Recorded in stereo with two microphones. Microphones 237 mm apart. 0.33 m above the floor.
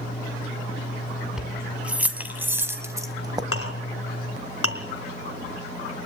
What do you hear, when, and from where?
1.4 s keys jangling: 5° right (ahead or behind), 2.5 m; by 3.4 s 15° right (ahead or behind), 1.4 m
3.5 s a clink: 75° left (ahead or behind), 2.5 m